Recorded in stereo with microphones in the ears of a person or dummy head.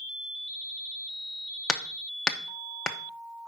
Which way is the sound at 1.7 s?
5° left (ahead or behind).